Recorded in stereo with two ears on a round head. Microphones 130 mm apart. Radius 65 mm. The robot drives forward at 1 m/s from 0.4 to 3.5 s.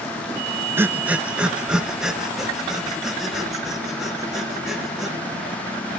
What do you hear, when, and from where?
0.8 s breathing: 15° right (ahead or behind), 0.6 m; by 5.2 s 5° right (ahead or behind), 3 m